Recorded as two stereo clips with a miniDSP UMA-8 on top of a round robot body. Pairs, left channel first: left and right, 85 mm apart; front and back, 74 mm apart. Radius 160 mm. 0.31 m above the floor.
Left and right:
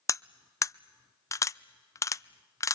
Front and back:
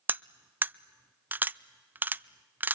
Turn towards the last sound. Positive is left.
turn(degrees=130)